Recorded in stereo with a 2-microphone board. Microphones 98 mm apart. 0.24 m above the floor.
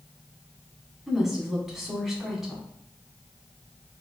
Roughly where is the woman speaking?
Centre.